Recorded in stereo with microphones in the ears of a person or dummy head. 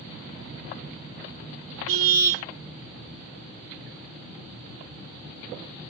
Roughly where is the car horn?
Right.